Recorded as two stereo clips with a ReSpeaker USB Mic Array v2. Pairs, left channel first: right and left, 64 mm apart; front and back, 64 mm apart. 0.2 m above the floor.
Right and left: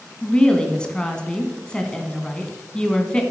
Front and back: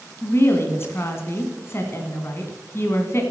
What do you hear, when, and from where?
0.2 s a woman speaking: 20° right, 2.0 m